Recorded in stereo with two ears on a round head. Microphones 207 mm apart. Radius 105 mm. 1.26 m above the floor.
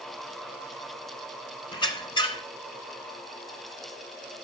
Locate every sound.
1.7 s a squeak: 20° left (ahead or behind), 1.2 m